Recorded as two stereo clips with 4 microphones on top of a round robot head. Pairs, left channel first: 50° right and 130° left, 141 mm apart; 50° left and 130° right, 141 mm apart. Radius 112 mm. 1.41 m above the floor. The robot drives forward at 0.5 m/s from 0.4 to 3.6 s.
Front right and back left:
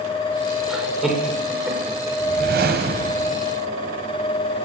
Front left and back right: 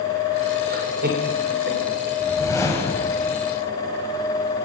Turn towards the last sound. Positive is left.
turn(degrees=130)